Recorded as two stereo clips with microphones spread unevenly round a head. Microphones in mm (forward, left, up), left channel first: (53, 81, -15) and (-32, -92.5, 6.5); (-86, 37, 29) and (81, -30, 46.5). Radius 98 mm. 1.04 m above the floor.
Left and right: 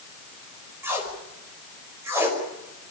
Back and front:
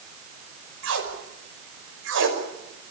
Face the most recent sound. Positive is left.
turn(degrees=-40)